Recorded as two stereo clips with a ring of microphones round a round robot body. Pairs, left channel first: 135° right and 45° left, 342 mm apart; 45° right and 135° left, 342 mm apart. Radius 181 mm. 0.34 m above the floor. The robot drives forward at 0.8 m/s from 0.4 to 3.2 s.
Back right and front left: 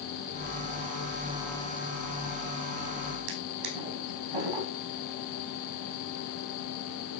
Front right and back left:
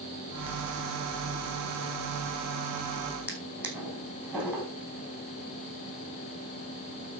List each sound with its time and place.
3.3 s a drawer: 50° left, 5 m